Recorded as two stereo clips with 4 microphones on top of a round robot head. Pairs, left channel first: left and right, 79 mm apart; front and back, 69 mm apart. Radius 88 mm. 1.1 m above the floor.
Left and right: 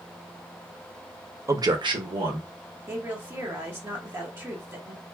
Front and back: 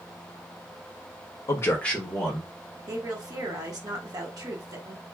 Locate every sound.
1.5 s a man speaking: 35° right, 0.6 m; by 2.5 s 95° right, 1.5 m
2.9 s a woman speaking: 150° right, 1.0 m